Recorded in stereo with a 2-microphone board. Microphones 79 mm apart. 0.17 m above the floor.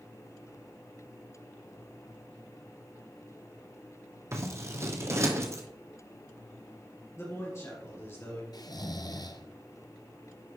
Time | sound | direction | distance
4.3 | scissors | 35° right (ahead or behind) | 1.2 m
7.2 | a man speaking | 35° left (ahead or behind) | 3 m
8.5 | snoring | 60° left (ahead or behind) | 0.6 m